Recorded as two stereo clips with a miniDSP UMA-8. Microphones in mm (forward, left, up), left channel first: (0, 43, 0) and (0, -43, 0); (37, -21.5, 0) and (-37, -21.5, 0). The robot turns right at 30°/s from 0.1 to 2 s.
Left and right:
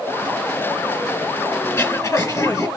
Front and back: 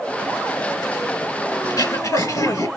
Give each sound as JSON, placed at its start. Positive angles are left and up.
{"t": 1.6, "sound": "throat clearing", "azimuth_deg": 30, "distance_m": 1.9}